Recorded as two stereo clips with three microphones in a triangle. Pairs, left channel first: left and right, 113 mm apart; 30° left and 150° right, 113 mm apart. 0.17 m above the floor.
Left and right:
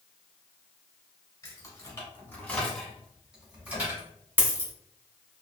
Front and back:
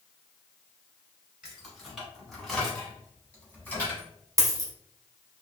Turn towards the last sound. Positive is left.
turn(degrees=-145)